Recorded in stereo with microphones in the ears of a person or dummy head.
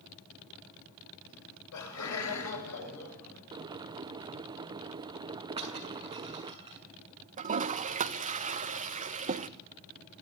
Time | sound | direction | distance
1.3 | laughter | 80° left | 9 m
3.5 | boiling | 15° right (ahead or behind) | 0.5 m
5.6 | breaking glass | 20° right (ahead or behind) | 6 m
7.4 | a toilet flushing | 30° right (ahead or behind) | 1.4 m